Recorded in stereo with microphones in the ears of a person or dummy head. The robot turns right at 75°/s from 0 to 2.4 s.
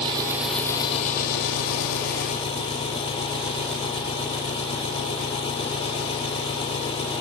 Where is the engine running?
35° right; by 7.2 s 145° left.